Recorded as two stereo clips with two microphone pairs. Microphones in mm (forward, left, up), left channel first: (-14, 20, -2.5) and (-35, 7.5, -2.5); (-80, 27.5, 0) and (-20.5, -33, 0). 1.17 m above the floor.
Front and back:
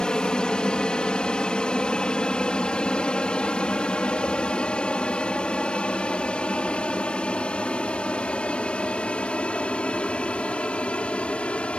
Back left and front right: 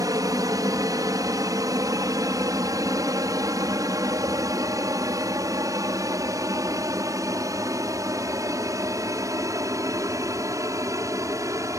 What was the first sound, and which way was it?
An aircraft, 15° right.